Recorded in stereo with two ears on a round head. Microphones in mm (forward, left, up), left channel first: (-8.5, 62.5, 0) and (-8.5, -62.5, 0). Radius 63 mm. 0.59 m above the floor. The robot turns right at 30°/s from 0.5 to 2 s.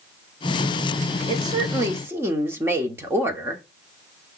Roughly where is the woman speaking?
Right.